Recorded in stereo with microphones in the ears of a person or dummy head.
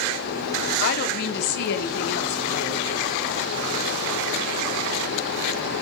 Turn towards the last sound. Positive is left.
turn(degrees=55)  # may be behind; listen again after turning